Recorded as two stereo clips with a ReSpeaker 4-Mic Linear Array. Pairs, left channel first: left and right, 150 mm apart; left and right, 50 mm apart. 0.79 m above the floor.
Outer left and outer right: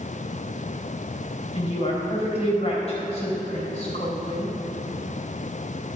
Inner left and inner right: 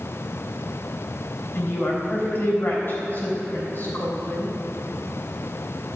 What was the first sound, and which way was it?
A woman speaking, 45° left (ahead or behind).